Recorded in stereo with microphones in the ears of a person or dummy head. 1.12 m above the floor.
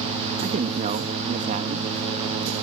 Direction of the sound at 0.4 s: 35° right (ahead or behind).